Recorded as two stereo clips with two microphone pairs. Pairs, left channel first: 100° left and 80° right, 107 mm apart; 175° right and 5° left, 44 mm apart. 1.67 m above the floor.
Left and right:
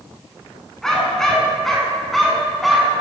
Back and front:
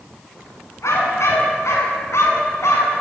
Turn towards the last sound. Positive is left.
turn(degrees=-170)